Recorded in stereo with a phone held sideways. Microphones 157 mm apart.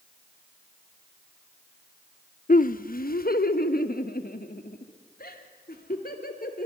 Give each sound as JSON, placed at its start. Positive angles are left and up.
{"t": 2.5, "sound": "laughter", "side_deg": 60, "distance_m": 0.6}